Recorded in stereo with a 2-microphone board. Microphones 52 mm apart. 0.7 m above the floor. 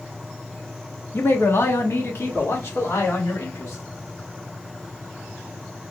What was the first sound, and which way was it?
A man speaking, 45° left (ahead or behind).